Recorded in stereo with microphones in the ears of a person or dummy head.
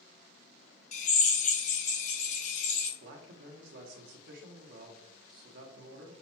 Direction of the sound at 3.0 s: 65° right (ahead or behind).